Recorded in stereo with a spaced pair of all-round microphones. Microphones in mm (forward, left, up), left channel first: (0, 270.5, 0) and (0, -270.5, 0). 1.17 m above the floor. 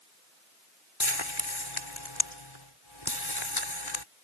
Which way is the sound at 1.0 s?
60° left (ahead or behind).